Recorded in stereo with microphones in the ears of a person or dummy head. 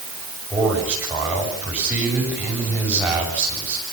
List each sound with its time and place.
0.5 s a man speaking: 5° right (ahead or behind), 7.5 m